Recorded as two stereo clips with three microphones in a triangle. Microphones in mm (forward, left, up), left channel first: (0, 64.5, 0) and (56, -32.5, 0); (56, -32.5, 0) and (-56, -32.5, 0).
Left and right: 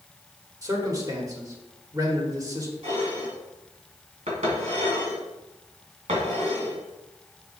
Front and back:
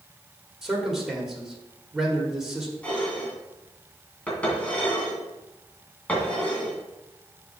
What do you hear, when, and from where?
0.6 s a man speaking: 95° right, 1.5 m
2.8 s dishes clattering: 80° right, 2 m